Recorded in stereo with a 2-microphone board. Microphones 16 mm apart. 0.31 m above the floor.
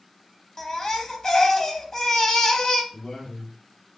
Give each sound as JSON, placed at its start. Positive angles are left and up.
{"t": 0.6, "sound": "a baby crying", "side_deg": 35, "distance_m": 0.5}
{"t": 2.9, "sound": "a man speaking", "side_deg": 45, "distance_m": 1.8}